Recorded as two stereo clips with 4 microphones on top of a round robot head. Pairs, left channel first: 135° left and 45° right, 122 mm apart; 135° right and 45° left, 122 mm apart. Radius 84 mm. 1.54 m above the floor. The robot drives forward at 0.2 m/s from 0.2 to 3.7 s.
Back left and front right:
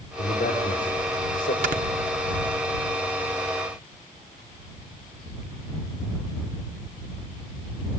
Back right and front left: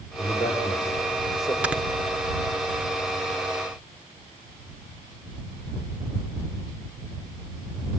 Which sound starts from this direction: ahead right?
Snoring, at 1.6 s.